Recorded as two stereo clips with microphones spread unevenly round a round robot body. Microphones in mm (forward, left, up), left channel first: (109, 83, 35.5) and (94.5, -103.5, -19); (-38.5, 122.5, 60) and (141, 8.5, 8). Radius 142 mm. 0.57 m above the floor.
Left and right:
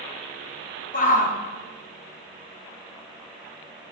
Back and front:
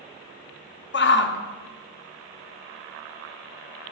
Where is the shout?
140° left, 0.8 m.